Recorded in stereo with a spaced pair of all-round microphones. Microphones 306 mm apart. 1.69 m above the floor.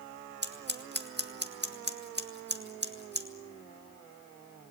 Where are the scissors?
35° right (ahead or behind), 2.0 m.